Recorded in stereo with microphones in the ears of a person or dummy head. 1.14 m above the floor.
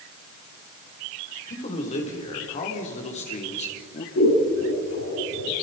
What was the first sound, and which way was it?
A man speaking, 40° left (ahead or behind).